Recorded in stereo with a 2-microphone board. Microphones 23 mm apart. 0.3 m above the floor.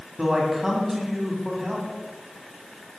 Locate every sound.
0.2 s a man speaking: 20° right (ahead or behind), 2 m